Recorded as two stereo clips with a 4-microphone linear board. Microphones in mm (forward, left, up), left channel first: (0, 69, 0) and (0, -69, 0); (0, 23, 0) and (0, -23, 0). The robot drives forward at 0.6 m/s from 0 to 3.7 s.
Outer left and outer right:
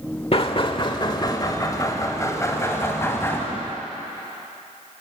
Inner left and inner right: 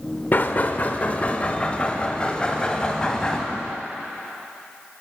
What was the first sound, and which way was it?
Knocking, 45° left (ahead or behind).